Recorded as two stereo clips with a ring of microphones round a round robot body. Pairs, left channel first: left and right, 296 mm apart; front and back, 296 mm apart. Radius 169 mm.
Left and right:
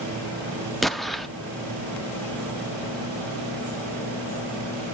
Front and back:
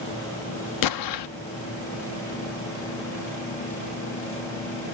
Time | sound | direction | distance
0.8 | an explosion | straight ahead | 0.6 m